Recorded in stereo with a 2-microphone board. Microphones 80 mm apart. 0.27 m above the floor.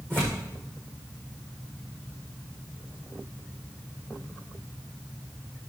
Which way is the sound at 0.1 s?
25° right (ahead or behind).